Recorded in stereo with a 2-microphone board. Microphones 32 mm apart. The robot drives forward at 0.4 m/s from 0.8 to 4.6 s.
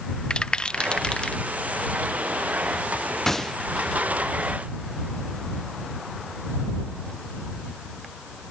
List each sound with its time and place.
0.3 s a rattle: 30° left (ahead or behind)
3.3 s a gunshot: 10° left (ahead or behind)